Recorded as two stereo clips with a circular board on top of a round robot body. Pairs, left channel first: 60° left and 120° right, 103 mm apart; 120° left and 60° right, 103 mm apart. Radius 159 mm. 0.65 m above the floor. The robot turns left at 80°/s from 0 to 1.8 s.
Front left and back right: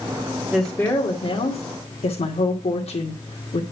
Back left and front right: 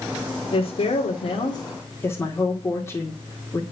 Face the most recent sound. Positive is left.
turn(degrees=55)